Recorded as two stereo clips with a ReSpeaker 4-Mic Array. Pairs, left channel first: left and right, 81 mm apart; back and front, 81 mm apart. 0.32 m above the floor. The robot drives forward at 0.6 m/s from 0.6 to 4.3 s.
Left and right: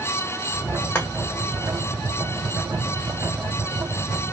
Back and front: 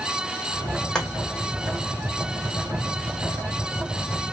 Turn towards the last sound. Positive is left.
turn(degrees=165)